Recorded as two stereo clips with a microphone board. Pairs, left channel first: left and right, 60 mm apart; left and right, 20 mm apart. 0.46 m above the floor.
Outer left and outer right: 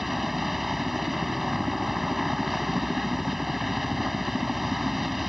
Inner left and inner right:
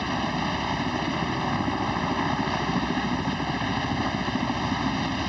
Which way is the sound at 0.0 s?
5° right (ahead or behind).